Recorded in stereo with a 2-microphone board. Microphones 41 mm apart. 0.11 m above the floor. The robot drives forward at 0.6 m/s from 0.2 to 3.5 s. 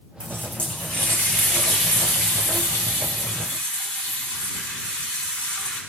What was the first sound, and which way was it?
A running tap, 35° left (ahead or behind).